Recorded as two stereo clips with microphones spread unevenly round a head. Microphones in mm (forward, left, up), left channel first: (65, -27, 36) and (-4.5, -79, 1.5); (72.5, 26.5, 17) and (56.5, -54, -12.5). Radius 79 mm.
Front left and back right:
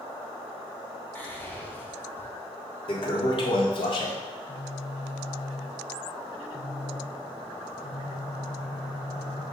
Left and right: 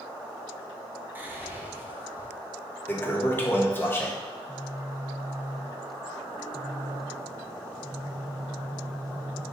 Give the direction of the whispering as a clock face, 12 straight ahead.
1 o'clock.